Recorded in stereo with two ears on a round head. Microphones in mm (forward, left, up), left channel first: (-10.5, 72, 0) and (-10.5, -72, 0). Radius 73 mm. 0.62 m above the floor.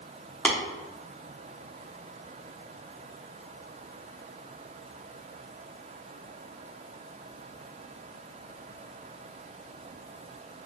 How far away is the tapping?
About 0.9 m.